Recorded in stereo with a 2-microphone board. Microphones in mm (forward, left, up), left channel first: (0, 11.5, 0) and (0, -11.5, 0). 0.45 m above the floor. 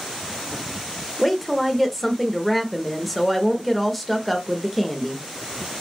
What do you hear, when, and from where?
1.2 s a woman speaking: 5° left (ahead or behind), 1.0 m